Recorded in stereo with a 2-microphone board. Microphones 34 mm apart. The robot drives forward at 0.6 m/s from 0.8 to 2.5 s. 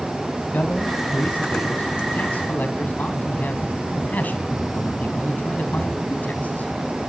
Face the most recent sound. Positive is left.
turn(degrees=60)  # may be behind; listen again after turning